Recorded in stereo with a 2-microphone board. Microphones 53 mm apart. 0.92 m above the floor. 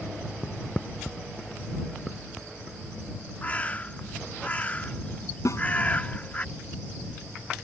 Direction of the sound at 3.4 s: 25° left (ahead or behind).